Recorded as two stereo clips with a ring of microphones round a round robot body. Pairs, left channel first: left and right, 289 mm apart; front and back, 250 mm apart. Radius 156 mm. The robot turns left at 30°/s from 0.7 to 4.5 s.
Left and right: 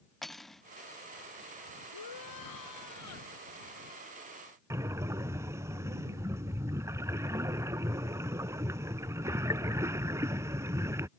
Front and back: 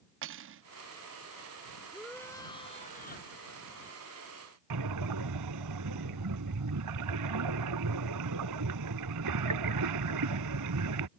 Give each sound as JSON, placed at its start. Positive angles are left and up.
{"t": 0.2, "sound": "cutlery clinking", "azimuth_deg": 180}
{"t": 1.9, "sound": "a shout", "azimuth_deg": 90}
{"t": 4.7, "sound": "breathing", "azimuth_deg": -170}